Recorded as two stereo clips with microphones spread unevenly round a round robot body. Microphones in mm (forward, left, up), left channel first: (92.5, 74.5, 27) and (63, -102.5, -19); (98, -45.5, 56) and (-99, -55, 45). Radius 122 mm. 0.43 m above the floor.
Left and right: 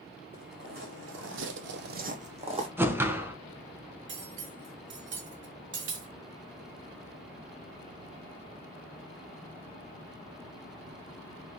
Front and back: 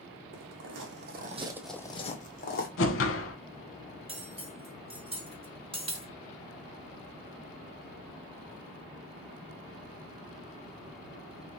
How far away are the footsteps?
About 1.5 m.